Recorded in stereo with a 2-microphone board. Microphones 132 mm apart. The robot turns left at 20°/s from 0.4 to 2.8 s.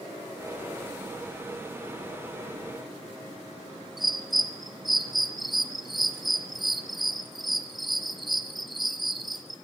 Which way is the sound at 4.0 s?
Centre (ahead or behind).